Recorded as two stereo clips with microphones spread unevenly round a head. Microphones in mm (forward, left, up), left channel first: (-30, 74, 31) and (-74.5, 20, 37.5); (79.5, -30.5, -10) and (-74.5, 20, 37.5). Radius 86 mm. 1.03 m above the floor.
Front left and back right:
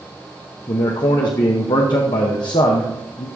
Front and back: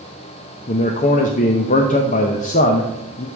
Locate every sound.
0.7 s a man speaking: 20° left, 0.7 m